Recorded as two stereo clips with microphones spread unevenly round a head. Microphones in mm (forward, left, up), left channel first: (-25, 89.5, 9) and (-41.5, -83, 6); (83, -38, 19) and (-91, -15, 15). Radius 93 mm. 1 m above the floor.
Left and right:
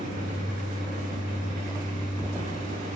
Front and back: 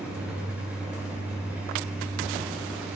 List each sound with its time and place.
0.0 s a fan: 105° right, 7.5 m